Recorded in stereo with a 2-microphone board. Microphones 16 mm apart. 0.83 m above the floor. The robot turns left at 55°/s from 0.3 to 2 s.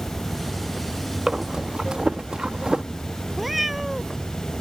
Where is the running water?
145° left; by 4.6 s 50° left.